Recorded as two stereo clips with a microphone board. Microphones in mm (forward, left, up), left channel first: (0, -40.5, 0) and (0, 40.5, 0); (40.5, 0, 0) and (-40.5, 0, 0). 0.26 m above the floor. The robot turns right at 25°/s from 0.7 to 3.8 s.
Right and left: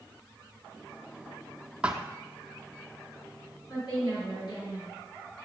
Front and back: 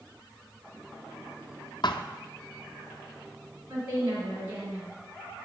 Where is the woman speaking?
120° right, 3.5 m.